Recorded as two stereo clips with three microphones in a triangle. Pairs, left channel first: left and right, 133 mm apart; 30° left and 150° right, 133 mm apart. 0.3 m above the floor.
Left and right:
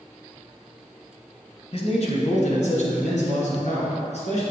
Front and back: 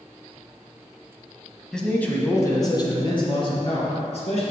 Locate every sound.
1.7 s a man speaking: 115° left, 1.6 m; by 4.4 s 65° left, 3 m